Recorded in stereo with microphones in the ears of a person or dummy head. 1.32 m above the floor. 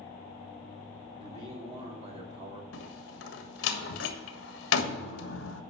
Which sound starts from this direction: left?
A door slam, at 2.7 s.